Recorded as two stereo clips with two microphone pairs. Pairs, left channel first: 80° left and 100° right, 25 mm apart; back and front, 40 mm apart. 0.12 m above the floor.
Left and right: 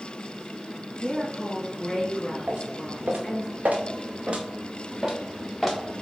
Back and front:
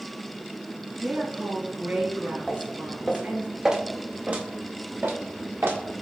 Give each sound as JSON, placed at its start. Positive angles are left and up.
{"t": 1.0, "sound": "a woman speaking", "azimuth_deg": 15, "distance_m": 2.0}
{"t": 2.5, "sound": "footsteps", "azimuth_deg": -95, "distance_m": 1.4}